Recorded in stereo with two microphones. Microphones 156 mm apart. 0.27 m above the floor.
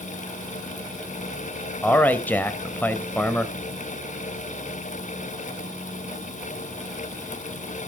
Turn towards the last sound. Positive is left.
turn(degrees=10)  # may be behind; listen again after turning